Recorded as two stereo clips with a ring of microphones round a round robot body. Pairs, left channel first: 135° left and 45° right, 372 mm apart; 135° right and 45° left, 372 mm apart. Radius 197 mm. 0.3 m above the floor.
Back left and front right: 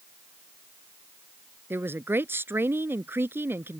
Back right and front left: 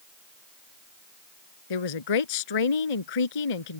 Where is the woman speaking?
130° right.